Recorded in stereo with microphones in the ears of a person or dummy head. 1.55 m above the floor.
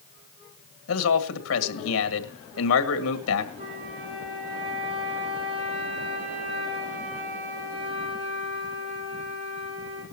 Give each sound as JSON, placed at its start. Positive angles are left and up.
{"t": 0.9, "sound": "a man speaking", "side_deg": 80, "distance_m": 2.0}
{"t": 3.6, "sound": "a flute", "side_deg": -30, "distance_m": 10.0}